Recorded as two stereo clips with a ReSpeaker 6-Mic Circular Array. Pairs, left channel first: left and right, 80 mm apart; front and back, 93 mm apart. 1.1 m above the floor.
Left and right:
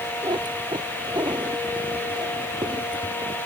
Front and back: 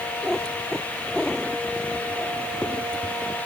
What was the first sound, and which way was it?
A cat meowing, 80° right.